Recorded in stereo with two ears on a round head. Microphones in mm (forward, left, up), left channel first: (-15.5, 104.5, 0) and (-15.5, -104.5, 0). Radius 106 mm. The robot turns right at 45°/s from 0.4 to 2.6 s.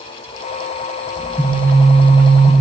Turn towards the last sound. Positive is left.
turn(degrees=-145)